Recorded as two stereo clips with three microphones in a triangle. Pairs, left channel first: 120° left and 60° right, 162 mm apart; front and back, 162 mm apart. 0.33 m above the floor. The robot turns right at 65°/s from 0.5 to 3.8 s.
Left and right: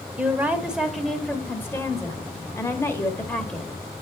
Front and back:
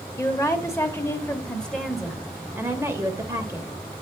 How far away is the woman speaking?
About 0.8 m.